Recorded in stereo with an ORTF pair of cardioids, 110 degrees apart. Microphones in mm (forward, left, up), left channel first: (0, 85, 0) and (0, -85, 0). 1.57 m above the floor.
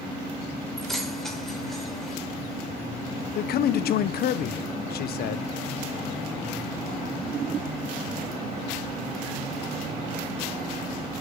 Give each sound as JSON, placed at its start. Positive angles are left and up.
{"t": 0.8, "sound": "keys jangling", "azimuth_deg": 0, "distance_m": 4.5}
{"t": 3.4, "sound": "a man speaking", "azimuth_deg": 65, "distance_m": 1.4}